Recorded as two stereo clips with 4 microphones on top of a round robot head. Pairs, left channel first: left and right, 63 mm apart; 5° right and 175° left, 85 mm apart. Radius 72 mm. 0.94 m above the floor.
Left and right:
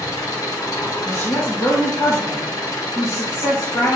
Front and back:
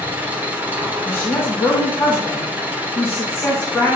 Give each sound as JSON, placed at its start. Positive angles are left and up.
{"t": 0.0, "sound": "an engine running", "azimuth_deg": 110, "distance_m": 1.1}
{"t": 1.1, "sound": "a woman speaking", "azimuth_deg": 60, "distance_m": 1.5}